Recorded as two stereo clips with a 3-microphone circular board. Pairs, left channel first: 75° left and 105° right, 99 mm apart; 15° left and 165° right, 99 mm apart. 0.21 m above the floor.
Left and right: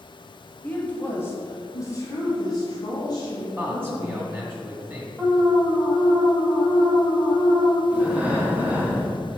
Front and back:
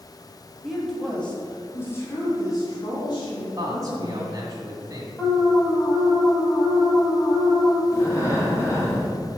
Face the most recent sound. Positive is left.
turn(degrees=-35)